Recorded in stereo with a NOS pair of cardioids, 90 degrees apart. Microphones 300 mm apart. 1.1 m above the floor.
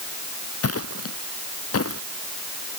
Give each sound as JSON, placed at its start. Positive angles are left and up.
{"t": 0.6, "sound": "footsteps", "azimuth_deg": 50}